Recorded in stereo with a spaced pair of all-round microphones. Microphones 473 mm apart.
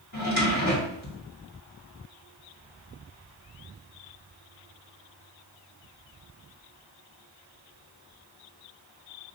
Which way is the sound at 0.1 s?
35° left (ahead or behind).